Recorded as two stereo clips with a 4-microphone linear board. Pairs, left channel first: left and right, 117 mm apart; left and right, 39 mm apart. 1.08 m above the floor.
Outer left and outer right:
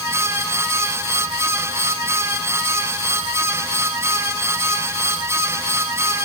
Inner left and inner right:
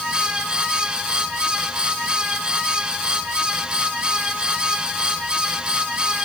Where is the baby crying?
No baby crying in this recording.